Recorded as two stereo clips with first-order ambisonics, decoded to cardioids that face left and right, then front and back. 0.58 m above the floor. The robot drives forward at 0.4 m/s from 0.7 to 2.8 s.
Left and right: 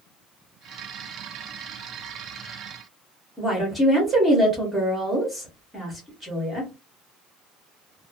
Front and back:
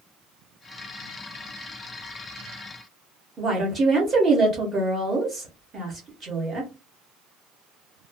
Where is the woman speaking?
165° right, 0.9 m.